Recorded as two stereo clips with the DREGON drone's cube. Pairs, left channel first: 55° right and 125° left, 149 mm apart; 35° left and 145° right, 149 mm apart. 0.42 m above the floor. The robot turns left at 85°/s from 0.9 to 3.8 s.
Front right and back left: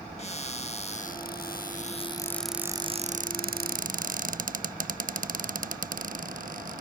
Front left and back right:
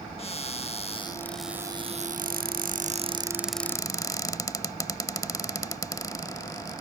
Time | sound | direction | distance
0.2 | a cupboard door | 15° right | ?